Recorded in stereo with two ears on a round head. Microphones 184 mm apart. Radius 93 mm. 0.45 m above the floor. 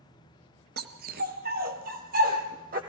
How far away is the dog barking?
About 1.6 m.